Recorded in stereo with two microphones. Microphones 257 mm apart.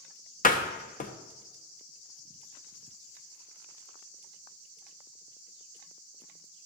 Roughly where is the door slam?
Left.